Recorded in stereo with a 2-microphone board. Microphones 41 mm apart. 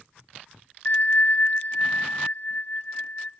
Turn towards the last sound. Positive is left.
turn(degrees=45)  # may be behind; listen again after turning